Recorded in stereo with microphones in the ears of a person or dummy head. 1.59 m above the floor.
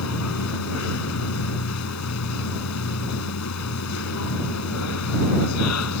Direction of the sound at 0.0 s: 90° left.